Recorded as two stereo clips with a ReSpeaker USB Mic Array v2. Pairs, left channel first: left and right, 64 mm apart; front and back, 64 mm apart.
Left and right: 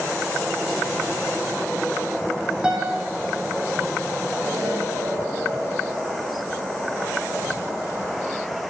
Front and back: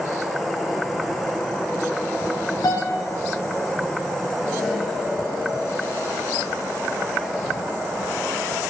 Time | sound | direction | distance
2.6 | a piano | 15° right | 1.8 m
4.4 | an explosion | 85° right | 3 m